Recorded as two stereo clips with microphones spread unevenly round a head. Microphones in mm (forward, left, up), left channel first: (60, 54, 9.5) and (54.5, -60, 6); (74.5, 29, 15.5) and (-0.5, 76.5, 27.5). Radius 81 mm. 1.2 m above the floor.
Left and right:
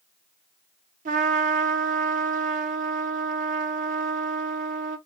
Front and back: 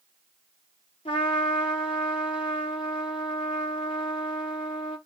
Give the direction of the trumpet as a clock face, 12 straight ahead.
3 o'clock.